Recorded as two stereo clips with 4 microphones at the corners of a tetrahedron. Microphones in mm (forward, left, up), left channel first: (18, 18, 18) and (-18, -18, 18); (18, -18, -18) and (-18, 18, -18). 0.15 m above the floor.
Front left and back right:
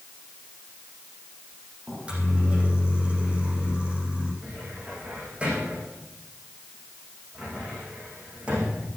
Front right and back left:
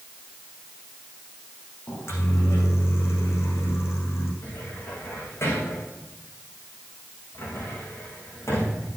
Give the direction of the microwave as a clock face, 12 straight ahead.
2 o'clock.